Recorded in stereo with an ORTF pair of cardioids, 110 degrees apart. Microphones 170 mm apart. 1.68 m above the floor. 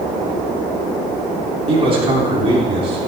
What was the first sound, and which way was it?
A man speaking, 35° right.